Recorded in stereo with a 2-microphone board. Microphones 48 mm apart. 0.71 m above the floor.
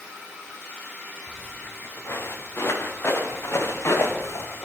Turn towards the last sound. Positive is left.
turn(degrees=60)  # may be behind; listen again after turning